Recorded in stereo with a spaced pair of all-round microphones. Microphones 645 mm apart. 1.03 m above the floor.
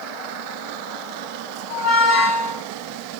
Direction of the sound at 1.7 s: 25° left (ahead or behind).